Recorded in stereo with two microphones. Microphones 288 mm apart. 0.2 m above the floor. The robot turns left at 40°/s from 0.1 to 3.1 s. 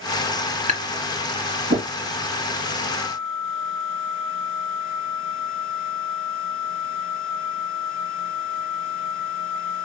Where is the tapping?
25° right (ahead or behind), 2.5 m; by 1.9 s 55° right (ahead or behind), 2.5 m.